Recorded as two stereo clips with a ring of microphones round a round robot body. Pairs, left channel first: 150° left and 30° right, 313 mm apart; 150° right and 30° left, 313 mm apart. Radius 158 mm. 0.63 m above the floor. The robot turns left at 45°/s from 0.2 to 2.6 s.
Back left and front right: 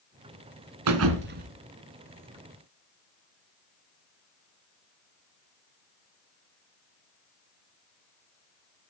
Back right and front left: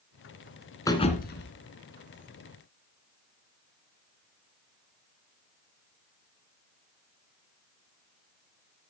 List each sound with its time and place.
0.9 s a thud: 70° right, 1.8 m; by 1.5 s 100° right, 1.8 m